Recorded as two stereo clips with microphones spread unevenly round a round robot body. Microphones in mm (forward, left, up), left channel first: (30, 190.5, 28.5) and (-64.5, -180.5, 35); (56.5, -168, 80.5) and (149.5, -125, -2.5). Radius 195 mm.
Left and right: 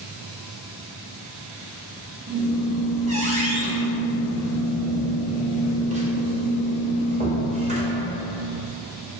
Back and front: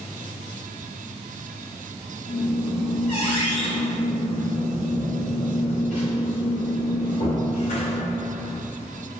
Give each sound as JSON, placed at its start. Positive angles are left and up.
{"t": 2.3, "sound": "a squeak", "azimuth_deg": -175, "distance_m": 0.7}